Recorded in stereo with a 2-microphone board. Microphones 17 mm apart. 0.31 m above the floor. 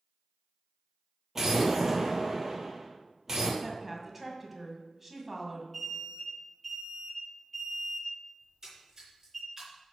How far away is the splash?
About 3.5 m.